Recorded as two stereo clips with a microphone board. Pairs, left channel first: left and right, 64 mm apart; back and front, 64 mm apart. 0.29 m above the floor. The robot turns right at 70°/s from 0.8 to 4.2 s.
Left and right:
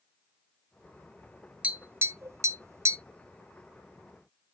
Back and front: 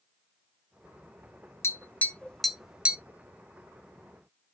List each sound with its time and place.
1.6 s tapping: 155° right, 0.6 m; by 3.0 s 60° right, 0.6 m